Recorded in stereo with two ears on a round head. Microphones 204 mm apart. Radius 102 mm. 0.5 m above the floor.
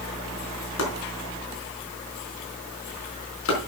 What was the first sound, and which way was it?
Chopping, 65° left (ahead or behind).